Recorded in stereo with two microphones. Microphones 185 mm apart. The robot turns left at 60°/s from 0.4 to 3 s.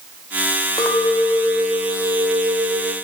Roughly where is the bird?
I don't hear a bird.